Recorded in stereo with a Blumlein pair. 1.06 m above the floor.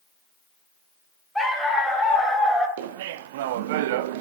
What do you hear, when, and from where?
1.4 s a dog barking: straight ahead, 2.5 m
2.8 s laughter: 50° right, 0.5 m